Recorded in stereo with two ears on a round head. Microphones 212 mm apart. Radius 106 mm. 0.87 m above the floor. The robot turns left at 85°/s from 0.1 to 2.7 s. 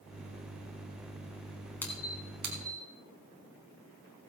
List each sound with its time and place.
1.8 s a squeak: 10° left (ahead or behind), 3 m; by 2.9 s 65° right (ahead or behind), 3 m